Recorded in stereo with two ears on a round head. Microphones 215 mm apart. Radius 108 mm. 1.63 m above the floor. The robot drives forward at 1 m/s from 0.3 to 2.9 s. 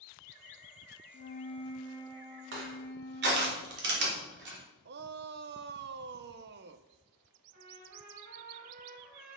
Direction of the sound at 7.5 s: 50° right (ahead or behind).